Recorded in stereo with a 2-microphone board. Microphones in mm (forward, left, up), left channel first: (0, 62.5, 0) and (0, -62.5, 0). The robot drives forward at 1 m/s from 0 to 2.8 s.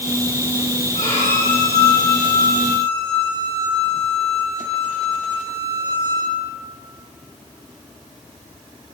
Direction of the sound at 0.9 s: 75° left (ahead or behind).